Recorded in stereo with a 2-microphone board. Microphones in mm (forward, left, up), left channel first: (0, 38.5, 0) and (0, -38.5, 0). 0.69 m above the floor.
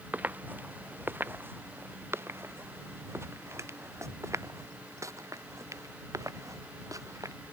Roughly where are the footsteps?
Right.